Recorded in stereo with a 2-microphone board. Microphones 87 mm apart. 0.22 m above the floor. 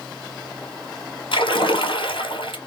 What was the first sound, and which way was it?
A splash, 85° left.